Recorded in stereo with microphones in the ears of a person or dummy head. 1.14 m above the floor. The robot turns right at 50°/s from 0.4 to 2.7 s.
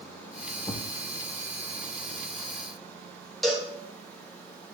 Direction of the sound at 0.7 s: 20° left (ahead or behind).